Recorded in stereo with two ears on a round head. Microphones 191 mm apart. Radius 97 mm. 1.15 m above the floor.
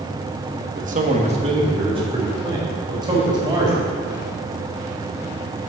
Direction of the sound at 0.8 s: 45° right (ahead or behind).